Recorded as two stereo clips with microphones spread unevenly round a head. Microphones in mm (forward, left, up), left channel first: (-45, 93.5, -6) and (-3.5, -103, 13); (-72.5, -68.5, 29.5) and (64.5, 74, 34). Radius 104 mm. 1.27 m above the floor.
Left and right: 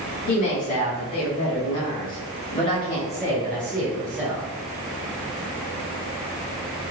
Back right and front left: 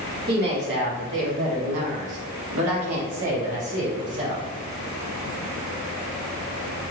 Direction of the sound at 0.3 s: 90° left.